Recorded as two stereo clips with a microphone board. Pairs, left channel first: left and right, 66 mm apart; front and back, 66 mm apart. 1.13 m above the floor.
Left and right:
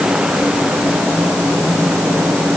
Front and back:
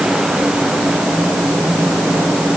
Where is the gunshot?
I don't hear a gunshot.